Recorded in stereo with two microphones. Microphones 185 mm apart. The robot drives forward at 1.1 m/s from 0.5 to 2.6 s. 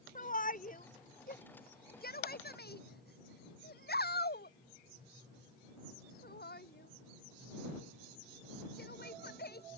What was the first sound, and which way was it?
A shout, 45° left (ahead or behind).